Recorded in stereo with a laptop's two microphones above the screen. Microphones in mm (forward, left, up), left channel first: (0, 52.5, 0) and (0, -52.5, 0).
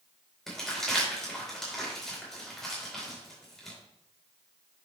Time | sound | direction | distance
0.5 | crumpling | 5° left (ahead or behind) | 4 m